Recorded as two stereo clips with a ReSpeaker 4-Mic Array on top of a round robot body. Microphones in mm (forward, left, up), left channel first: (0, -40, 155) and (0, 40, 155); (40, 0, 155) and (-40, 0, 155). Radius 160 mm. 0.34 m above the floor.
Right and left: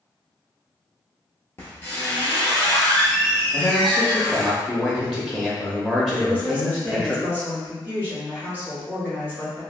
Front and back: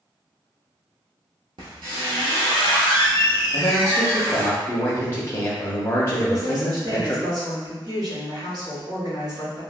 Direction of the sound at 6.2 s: 155° right.